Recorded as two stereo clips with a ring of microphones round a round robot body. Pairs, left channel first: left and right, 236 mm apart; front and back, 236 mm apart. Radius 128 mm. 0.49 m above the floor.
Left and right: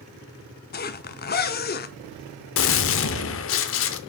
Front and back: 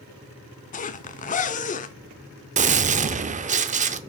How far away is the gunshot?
About 0.6 m.